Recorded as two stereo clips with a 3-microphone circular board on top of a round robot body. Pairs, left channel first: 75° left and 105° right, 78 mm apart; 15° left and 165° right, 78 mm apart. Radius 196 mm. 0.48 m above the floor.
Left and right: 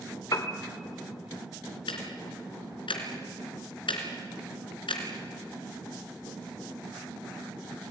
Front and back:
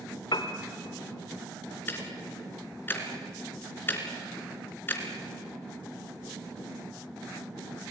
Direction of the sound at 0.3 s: 35° left.